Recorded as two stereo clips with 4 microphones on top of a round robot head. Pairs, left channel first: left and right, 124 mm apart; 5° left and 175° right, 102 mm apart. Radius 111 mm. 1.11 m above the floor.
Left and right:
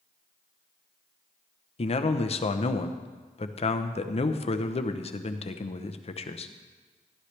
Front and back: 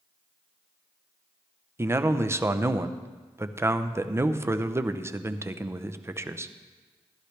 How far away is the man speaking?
About 0.8 m.